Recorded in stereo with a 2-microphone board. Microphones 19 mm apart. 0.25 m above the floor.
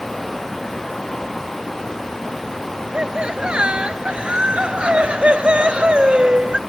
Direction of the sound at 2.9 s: 60° right (ahead or behind).